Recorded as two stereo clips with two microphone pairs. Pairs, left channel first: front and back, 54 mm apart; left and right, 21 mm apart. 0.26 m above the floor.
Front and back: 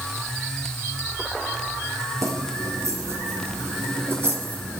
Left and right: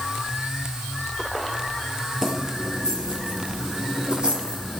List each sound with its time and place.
2.2 s keys jangling: 160° right, 5 m; by 4.8 s 125° right, 5 m